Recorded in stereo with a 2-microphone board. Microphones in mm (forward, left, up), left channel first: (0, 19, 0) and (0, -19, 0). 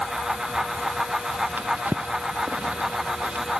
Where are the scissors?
I don't hear scissors.